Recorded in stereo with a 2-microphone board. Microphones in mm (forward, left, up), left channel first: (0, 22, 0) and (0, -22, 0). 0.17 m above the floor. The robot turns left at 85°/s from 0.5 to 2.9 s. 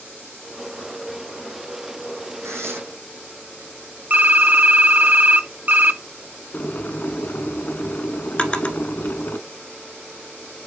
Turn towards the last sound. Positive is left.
turn(degrees=25)  # may be behind; listen again after turning